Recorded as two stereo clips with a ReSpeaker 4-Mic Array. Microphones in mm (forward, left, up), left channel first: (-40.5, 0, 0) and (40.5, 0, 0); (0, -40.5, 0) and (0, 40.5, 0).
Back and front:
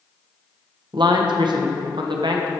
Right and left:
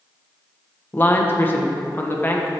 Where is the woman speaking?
25° right, 0.9 m.